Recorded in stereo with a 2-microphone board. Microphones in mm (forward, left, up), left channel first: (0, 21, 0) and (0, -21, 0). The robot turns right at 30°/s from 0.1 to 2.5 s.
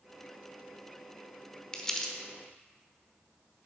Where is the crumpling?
20° left (ahead or behind), 1.0 m; by 2.1 s 5° left (ahead or behind), 1.0 m.